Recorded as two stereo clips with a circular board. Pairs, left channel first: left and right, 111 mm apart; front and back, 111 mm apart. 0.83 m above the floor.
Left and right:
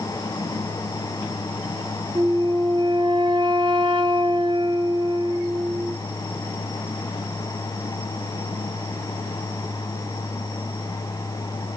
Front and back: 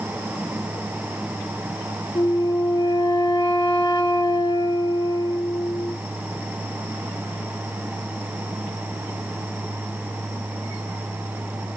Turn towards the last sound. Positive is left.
turn(degrees=-50)